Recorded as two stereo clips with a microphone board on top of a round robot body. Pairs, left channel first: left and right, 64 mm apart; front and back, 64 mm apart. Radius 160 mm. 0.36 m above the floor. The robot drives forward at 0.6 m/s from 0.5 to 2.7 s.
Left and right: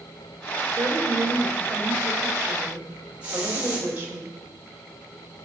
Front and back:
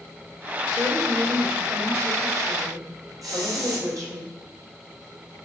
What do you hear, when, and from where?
0.7 s a woman speaking: 130° right, 2 m; by 4.2 s 150° right, 3 m
3.2 s a hiss: 155° right, 4 m